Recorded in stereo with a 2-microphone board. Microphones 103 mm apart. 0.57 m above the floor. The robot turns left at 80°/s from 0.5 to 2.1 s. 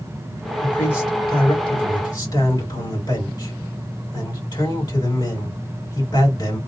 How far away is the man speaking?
About 2 m.